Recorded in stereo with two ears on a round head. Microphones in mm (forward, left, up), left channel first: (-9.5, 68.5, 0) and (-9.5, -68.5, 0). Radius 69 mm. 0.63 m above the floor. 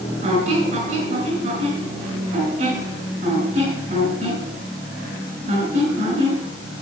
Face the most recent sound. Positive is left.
turn(degrees=-45)  # may be behind; listen again after turning